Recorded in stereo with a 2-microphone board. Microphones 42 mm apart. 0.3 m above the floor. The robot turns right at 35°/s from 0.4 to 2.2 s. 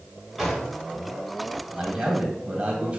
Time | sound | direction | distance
0.4 | a drawer | centre (ahead or behind) | 1.9 m
1.7 | a man speaking | 15° right (ahead or behind) | 1.0 m